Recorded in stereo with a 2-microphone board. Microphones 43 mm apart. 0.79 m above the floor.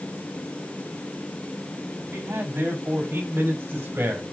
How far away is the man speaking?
About 6 m.